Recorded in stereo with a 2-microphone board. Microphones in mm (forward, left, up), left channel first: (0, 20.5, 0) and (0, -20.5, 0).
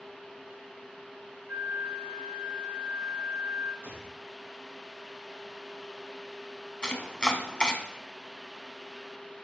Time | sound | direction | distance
1.5 | a flute | 55° right (ahead or behind) | 0.8 m
3.8 | a gunshot | 75° right (ahead or behind) | 1.9 m
6.8 | chopping | 20° left (ahead or behind) | 1.1 m